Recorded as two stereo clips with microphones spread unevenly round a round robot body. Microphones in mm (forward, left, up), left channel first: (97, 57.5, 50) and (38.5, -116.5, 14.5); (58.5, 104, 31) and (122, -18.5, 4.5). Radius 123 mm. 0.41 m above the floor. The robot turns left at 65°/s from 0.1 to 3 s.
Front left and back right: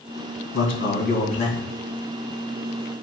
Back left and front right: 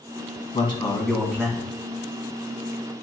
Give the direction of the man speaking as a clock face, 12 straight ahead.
10 o'clock.